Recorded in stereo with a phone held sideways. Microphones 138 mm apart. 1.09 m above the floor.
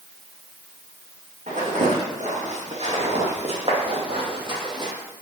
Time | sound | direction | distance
1.5 | footsteps | 65° right (ahead or behind) | 3 m